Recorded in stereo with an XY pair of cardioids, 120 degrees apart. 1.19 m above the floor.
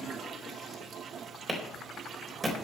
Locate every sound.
1.5 s a clap: 20° right, 4 m